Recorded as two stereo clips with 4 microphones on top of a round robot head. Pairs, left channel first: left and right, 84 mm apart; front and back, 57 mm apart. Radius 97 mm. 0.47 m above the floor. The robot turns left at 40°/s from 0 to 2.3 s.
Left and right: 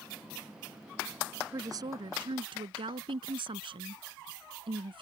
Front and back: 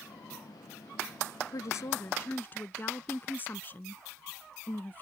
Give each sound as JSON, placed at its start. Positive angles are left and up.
{"t": 1.5, "sound": "a woman speaking", "azimuth_deg": -30}